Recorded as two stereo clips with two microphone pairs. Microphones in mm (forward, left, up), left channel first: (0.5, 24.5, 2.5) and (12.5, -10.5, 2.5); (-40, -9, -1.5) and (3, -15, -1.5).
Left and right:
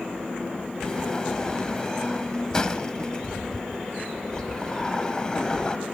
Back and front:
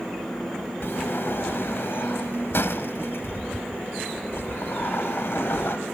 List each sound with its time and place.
0.8 s a sliding door: straight behind, 1.1 m